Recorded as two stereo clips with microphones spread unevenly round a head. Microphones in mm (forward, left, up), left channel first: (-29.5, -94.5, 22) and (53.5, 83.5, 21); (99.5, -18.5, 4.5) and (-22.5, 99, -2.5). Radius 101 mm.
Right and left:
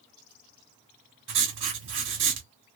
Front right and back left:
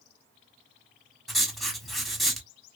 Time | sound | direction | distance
1.3 | writing | 45° left | 1.3 m